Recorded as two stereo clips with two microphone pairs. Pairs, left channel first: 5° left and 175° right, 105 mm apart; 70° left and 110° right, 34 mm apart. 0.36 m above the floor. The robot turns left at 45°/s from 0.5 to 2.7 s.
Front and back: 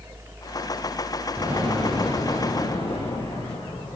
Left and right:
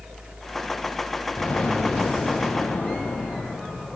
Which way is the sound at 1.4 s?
115° left.